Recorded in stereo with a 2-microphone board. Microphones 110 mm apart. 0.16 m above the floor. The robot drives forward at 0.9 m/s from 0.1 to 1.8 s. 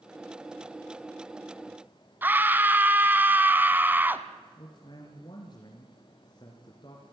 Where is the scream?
15° right (ahead or behind), 1.2 m.